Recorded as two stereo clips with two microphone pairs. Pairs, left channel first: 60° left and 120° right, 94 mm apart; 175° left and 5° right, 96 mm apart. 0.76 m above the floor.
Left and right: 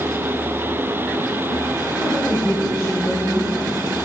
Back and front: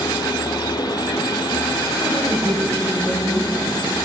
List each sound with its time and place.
2.0 s a woman speaking: 30° right, 4.5 m